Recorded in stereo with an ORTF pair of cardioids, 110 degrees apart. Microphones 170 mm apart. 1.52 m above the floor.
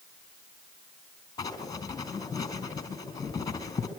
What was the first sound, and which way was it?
Writing, 25° left.